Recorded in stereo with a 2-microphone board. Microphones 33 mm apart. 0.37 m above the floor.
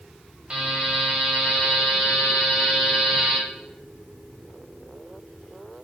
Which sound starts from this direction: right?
A buzzer, at 0.5 s.